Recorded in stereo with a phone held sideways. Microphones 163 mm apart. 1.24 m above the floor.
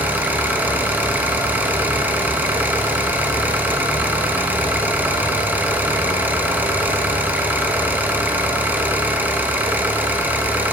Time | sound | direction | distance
0.0 | an engine running | 10° right (ahead or behind) | 1.1 m